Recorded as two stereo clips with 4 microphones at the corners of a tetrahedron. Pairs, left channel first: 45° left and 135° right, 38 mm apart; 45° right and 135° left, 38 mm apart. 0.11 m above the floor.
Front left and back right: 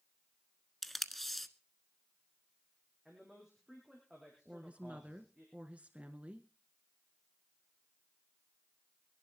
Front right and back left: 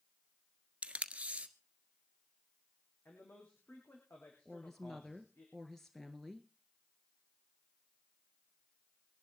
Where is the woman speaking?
120° right, 1.5 m.